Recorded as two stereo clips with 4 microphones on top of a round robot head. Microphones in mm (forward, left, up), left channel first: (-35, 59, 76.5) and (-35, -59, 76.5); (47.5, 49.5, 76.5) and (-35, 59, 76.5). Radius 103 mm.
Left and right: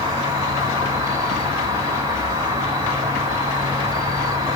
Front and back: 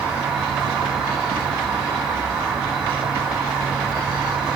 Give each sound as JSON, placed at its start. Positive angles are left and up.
{"t": 0.0, "sound": "an insect", "azimuth_deg": -115, "distance_m": 1.4}